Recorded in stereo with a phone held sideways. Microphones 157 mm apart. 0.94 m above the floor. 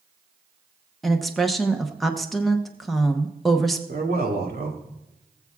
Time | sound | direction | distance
1.0 | a woman speaking | centre (ahead or behind) | 0.8 m
3.9 | a man speaking | 75° right (ahead or behind) | 2.5 m